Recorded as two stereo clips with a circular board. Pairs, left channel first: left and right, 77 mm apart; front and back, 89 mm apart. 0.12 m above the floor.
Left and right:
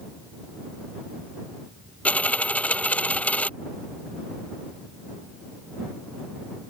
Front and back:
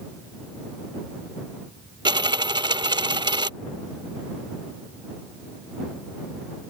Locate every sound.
2.0 s a dropped coin: 160° left